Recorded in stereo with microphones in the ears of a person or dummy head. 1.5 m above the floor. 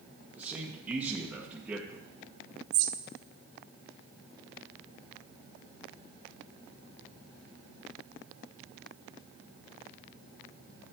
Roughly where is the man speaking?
Centre.